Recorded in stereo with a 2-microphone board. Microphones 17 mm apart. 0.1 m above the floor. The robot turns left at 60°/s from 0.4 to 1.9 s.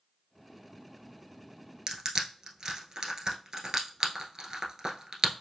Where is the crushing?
40° right (ahead or behind), 1.1 m.